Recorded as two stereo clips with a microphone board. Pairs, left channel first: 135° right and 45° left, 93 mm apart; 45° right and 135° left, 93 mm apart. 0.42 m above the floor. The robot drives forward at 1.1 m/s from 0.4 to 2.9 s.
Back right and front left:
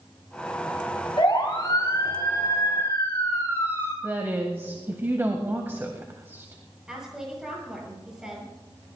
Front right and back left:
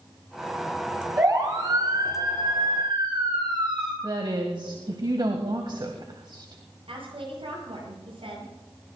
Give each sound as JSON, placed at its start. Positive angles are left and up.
{"t": 1.2, "sound": "a siren", "azimuth_deg": 180, "distance_m": 6.0}
{"t": 4.0, "sound": "a woman speaking", "azimuth_deg": 110, "distance_m": 2.0}
{"t": 6.9, "sound": "a woman speaking", "azimuth_deg": 130, "distance_m": 9.5}